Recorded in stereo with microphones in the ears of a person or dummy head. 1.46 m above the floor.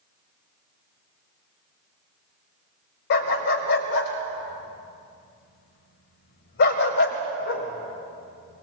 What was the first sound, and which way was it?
A dog barking, 60° left (ahead or behind).